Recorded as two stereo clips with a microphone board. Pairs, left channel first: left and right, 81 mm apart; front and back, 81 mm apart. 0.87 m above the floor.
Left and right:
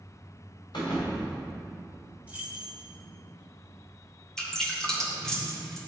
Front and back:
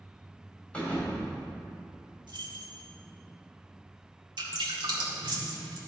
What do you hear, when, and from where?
0.7 s a thud: 75° left, 2.5 m
2.3 s keys jangling: 160° right, 1.2 m
4.4 s dripping: 175° left, 1.8 m